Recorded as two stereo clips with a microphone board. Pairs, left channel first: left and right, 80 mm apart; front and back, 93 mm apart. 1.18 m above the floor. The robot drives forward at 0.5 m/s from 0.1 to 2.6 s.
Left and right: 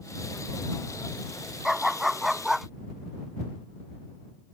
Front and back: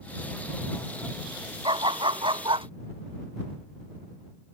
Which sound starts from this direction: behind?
A dog barking, at 1.6 s.